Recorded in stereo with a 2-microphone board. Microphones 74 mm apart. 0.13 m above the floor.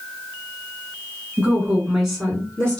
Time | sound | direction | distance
1.4 | a woman speaking | 20° right (ahead or behind) | 1.5 m